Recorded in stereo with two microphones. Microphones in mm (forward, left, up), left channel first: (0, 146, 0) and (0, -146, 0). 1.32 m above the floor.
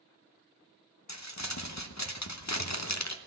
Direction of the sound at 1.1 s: 65° left (ahead or behind).